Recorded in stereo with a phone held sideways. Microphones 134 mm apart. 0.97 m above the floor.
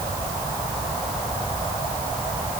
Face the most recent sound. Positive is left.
No sound to turn to.